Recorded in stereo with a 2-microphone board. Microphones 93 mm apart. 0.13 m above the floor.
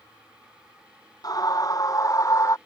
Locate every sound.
1.2 s a scream: 45° left (ahead or behind); by 2.6 s 35° left (ahead or behind)